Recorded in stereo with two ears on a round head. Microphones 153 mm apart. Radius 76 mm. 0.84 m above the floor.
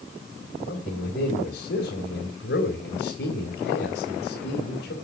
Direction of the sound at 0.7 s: 70° left (ahead or behind).